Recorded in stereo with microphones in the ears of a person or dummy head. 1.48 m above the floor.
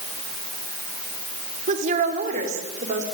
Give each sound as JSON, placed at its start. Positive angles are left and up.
{"t": 1.7, "sound": "a woman speaking", "side_deg": -40, "distance_m": 4.0}